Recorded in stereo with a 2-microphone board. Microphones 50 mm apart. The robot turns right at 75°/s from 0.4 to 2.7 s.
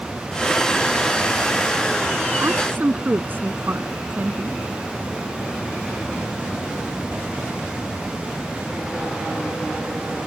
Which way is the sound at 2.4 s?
65° right (ahead or behind).